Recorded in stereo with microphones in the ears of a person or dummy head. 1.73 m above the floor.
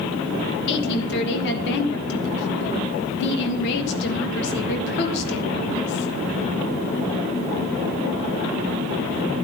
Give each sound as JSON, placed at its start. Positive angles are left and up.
{"t": 0.7, "sound": "a woman speaking", "side_deg": 65, "distance_m": 2.5}